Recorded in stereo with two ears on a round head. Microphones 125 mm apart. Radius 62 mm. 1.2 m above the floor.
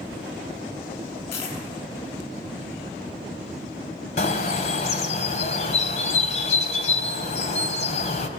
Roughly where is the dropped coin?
Left.